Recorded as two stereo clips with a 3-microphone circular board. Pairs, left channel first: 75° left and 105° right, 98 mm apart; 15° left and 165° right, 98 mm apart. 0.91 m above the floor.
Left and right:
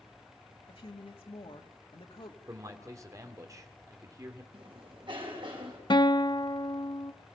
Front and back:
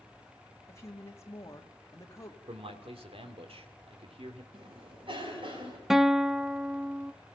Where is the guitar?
110° left, 0.8 m.